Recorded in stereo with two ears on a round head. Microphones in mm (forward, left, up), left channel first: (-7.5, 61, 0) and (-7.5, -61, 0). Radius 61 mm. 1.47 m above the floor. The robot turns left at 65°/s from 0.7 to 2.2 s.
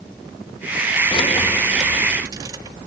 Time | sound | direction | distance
1.1 | keys jangling | 40° left (ahead or behind) | 1.4 m